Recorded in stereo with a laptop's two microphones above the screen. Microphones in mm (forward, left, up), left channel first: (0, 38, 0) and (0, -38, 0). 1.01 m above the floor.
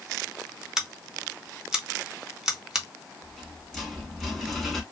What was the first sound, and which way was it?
Scissors, 10° right (ahead or behind).